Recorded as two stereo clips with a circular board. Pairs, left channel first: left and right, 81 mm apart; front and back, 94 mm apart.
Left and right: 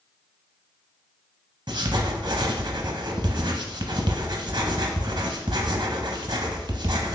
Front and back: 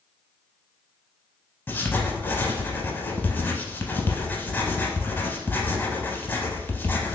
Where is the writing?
65° right, 0.5 m.